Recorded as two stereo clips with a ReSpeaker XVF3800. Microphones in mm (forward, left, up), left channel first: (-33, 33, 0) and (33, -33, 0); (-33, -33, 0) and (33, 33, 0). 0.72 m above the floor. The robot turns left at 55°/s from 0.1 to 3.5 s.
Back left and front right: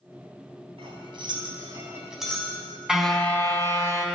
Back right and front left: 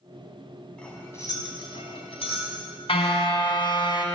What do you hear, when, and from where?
0.8 s cutlery clinking: 55° right, 3 m; by 2.5 s 150° right, 3 m
2.9 s a car horn: 130° right, 2.5 m; by 4.0 s 160° right, 2.5 m